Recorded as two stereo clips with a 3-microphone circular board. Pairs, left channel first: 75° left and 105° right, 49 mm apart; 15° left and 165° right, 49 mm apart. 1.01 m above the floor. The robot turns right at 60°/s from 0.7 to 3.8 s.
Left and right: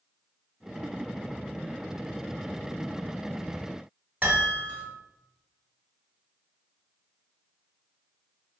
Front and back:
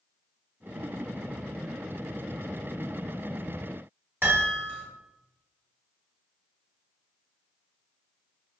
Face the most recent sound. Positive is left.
turn(degrees=-150)